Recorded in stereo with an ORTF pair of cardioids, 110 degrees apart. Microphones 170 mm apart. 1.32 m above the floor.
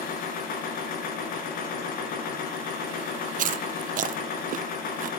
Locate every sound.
0.0 s a machine running: 60° left, 5 m
3.4 s chewing: 50° right, 0.8 m